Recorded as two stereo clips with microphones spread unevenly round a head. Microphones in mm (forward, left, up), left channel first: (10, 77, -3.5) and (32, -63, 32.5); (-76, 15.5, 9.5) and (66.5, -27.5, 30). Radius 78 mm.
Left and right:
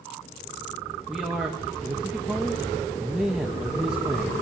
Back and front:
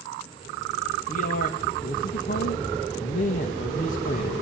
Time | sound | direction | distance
1.1 | a man speaking | 165° right | 2.5 m